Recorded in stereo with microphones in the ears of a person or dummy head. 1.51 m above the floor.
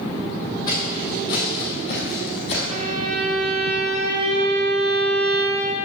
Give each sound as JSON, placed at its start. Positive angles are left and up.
{"t": 0.7, "sound": "footsteps", "side_deg": 20, "distance_m": 4.0}
{"t": 2.7, "sound": "a violin", "side_deg": -50, "distance_m": 0.7}